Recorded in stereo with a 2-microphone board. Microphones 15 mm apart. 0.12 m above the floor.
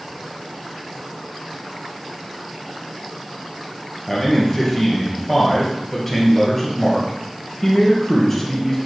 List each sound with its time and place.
4.1 s a man speaking: 10° left (ahead or behind), 3 m